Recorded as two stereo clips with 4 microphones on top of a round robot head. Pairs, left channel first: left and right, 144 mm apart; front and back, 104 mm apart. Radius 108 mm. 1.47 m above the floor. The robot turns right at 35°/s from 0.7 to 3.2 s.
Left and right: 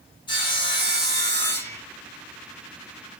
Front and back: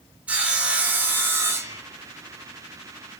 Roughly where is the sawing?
Behind left.